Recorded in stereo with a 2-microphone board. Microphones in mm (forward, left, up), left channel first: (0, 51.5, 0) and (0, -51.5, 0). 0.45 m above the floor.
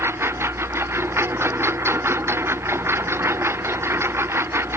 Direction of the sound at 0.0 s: 25° right (ahead or behind).